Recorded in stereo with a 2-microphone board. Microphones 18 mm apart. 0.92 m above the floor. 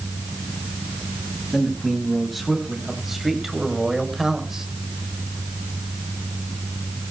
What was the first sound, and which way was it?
A man speaking, 5° left (ahead or behind).